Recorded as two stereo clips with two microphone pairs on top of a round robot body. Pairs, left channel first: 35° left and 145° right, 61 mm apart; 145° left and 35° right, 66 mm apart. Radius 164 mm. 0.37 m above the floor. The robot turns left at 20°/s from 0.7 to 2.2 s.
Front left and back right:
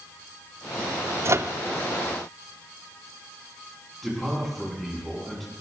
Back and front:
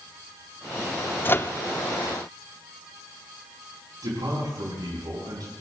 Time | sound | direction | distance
1.2 | a microwave | 170° right | 0.7 m
4.0 | a man speaking | 55° right | 6 m